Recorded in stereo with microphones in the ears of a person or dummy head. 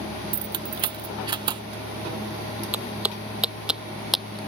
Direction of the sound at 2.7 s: 10° right (ahead or behind).